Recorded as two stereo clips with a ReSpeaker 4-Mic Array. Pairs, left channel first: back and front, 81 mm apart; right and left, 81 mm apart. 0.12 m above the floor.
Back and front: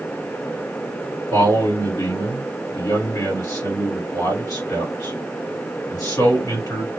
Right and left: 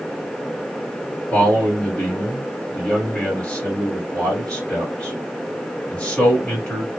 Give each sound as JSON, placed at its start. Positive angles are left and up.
{"t": 1.3, "sound": "a man speaking", "azimuth_deg": -160, "distance_m": 2.0}